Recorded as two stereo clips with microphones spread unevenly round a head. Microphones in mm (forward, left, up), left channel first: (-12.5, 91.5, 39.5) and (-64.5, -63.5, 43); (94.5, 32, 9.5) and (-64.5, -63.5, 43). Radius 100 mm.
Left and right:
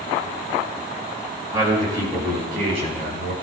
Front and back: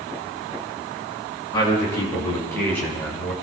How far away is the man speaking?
About 6 m.